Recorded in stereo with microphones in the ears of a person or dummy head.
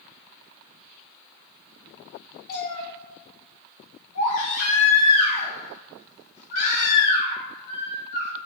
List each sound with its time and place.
2.5 s a cat meowing: 50° left (ahead or behind), 1.2 m
4.2 s a baby crying: 60° left (ahead or behind), 1.8 m